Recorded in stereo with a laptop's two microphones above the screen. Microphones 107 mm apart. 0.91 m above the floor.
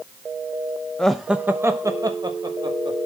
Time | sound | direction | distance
1.0 | laughter | 10° left (ahead or behind) | 0.7 m